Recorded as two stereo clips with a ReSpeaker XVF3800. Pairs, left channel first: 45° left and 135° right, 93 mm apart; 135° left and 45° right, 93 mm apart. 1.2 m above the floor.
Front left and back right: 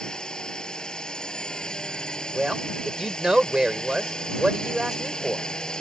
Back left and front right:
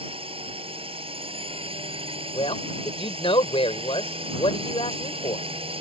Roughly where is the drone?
Ahead right.